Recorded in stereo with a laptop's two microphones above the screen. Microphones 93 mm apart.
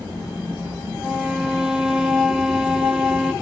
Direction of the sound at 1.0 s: 5° right (ahead or behind).